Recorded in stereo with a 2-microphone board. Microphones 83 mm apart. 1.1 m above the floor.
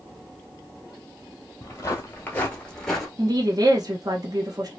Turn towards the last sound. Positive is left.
turn(degrees=-50)  # may be behind; listen again after turning